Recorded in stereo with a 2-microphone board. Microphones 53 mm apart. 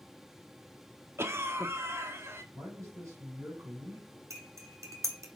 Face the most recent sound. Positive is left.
turn(degrees=-75)  # may be behind; listen again after turning